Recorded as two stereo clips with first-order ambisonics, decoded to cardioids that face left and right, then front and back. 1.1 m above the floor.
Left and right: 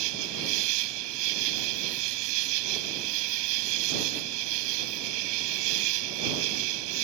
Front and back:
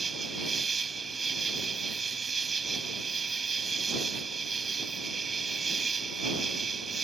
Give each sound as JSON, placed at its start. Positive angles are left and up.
{"t": 0.0, "sound": "an insect", "azimuth_deg": -105}